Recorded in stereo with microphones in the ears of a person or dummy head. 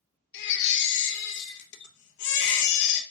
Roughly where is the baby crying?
Left.